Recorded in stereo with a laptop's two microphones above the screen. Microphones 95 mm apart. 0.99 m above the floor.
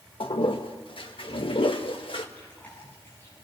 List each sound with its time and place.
0.2 s a toilet flushing: 60° left (ahead or behind), 1.3 m
2.4 s chewing: 20° left (ahead or behind), 7.5 m